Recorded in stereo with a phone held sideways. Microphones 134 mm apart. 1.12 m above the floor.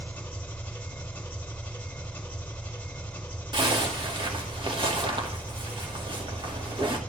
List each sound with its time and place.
0.0 s an engine running: 10° left (ahead or behind), 3 m
3.5 s a zipper: 40° right (ahead or behind), 2 m